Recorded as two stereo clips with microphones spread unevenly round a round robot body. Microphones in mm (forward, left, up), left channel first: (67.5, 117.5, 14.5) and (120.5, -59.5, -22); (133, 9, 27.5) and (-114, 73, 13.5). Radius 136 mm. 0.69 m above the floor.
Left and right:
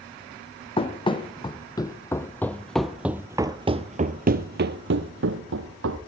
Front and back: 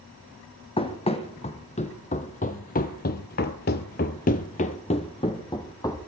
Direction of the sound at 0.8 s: 50° left.